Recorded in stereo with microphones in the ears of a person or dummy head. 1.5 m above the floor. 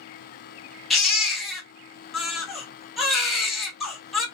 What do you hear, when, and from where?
0.9 s a baby crying: centre (ahead or behind), 1.3 m